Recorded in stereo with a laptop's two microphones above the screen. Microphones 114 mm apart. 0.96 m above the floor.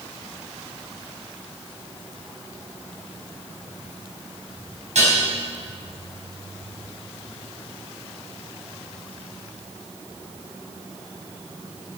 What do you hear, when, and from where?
5.0 s dishes clattering: 90° right, 4.5 m